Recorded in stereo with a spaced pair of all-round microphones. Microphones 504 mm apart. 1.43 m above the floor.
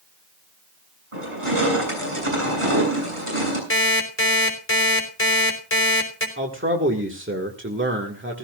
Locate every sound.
1.1 s crushing: 80° right, 7 m
3.7 s an alarm clock: 25° left (ahead or behind), 3.5 m
6.4 s a man speaking: 25° right (ahead or behind), 1.8 m